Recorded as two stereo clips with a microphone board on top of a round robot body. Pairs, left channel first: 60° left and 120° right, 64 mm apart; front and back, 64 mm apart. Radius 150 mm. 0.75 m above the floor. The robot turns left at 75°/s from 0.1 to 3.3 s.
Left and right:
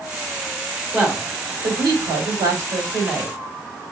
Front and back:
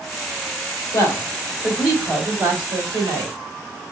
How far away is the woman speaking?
About 3 m.